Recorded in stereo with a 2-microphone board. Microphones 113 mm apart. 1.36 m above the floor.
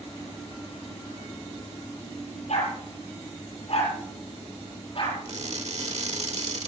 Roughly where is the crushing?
Right.